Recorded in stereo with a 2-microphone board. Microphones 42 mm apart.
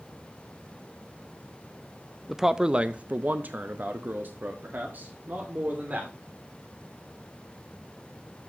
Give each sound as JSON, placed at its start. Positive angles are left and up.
{"t": 2.3, "sound": "a man speaking", "side_deg": -5, "distance_m": 0.6}